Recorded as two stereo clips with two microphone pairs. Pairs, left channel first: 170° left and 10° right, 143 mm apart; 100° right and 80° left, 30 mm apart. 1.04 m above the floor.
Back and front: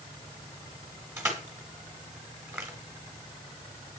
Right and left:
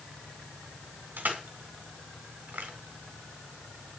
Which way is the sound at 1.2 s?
60° left.